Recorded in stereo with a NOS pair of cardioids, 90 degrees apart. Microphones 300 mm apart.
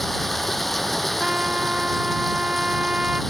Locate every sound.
0.0 s running water: straight ahead
1.2 s a trumpet: 5° right